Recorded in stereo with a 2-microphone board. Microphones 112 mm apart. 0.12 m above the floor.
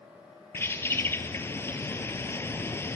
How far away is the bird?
About 1.5 m.